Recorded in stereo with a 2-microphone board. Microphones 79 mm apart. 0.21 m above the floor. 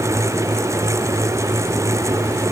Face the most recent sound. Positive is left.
No sound to turn to.